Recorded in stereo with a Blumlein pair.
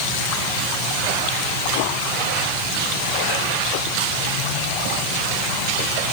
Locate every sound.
Only background noise.